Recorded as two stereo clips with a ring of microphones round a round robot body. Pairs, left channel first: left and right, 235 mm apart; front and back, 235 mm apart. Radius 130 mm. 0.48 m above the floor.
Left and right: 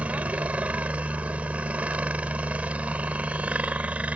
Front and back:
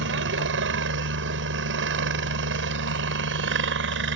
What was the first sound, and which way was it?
A helicopter, 175° right.